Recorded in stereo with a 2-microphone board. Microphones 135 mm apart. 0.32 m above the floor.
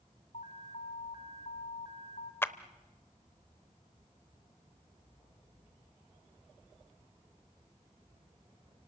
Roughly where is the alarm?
Left.